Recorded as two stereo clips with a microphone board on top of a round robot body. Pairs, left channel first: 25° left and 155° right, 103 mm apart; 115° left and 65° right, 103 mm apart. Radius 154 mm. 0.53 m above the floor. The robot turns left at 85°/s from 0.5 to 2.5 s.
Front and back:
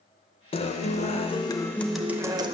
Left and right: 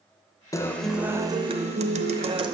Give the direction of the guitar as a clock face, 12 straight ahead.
10 o'clock.